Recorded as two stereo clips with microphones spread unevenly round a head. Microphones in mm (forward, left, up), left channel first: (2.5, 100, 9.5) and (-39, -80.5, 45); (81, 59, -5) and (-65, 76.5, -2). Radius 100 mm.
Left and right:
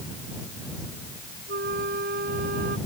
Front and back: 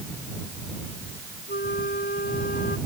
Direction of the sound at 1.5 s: 60° right.